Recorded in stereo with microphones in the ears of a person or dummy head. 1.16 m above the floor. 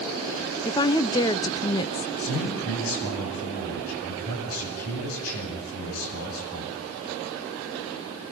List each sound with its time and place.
0.7 s a woman speaking: 20° left (ahead or behind), 0.6 m
2.2 s a man speaking: 85° left, 8.5 m